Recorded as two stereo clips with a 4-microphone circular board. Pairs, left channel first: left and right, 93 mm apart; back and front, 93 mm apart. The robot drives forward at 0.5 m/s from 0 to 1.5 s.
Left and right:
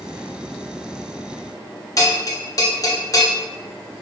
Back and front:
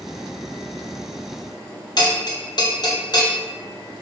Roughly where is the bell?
Behind left.